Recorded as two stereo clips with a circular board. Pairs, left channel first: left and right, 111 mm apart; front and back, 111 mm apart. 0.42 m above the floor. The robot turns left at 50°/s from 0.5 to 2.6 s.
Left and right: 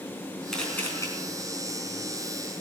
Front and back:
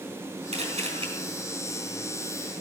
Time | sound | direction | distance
0.5 | a camera shutter | 175° left | 4.5 m